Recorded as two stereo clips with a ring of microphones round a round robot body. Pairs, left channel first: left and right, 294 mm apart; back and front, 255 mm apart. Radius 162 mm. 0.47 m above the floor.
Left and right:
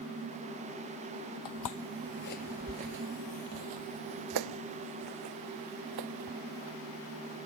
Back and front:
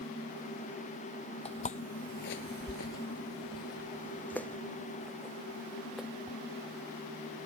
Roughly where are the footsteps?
Behind left.